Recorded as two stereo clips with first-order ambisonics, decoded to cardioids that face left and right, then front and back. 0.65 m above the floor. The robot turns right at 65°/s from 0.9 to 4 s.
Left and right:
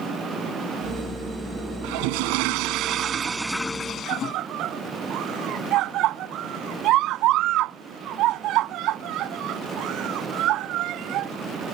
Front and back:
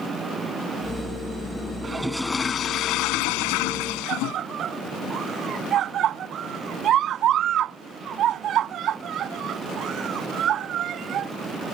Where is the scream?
130° right.